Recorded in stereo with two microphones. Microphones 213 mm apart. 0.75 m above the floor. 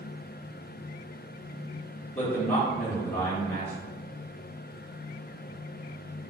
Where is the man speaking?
35° left (ahead or behind), 2.5 m.